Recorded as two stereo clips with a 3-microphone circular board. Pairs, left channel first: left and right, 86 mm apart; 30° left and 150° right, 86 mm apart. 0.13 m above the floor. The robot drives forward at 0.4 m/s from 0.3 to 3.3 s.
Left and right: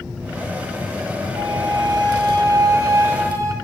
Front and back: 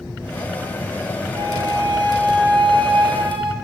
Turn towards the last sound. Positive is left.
turn(degrees=-145)